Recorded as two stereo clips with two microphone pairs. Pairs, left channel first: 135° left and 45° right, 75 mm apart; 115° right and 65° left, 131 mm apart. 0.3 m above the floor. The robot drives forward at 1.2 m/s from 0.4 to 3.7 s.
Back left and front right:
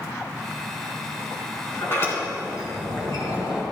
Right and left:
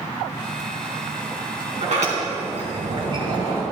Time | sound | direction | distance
1.8 | a sliding door | 80° left | 2.5 m